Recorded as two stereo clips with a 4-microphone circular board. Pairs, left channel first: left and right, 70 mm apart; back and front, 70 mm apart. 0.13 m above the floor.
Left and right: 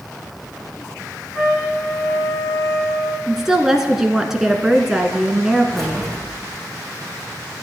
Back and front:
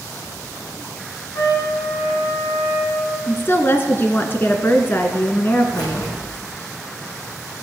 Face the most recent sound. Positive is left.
turn(degrees=175)